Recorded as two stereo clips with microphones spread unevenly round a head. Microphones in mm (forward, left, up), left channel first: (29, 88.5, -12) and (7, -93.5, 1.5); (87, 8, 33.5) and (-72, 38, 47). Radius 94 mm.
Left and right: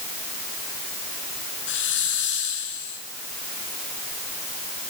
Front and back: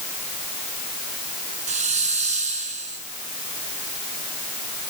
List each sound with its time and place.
1.7 s a hiss: 120° left, 6.5 m